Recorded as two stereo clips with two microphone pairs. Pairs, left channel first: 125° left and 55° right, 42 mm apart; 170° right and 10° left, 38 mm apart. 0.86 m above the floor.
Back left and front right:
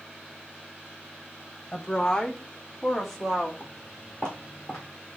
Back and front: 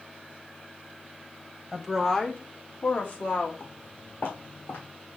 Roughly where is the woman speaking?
Left.